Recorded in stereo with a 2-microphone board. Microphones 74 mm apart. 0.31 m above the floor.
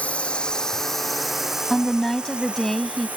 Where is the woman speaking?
5° left (ahead or behind).